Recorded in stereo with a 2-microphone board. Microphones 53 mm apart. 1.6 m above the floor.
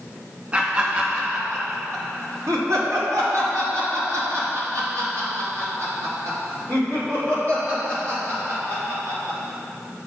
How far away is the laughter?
About 2.5 m.